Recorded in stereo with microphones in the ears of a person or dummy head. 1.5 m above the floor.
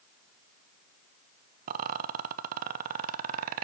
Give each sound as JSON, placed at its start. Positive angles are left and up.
{"t": 1.7, "sound": "a rattle", "side_deg": -50, "distance_m": 0.8}